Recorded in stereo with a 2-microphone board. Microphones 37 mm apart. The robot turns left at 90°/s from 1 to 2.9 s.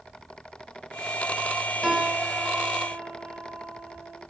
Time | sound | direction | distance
1.8 | a piano | 5° right | 2.5 m